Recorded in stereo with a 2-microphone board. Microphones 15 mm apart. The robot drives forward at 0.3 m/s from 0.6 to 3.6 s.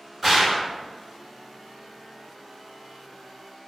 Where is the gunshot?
10° right (ahead or behind), 1.2 m.